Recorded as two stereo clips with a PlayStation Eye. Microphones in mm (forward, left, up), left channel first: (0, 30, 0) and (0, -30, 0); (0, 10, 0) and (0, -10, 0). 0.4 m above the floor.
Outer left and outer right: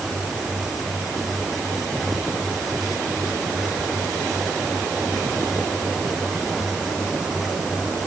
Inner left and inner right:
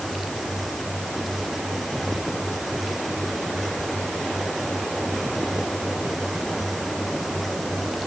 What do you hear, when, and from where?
Only background noise.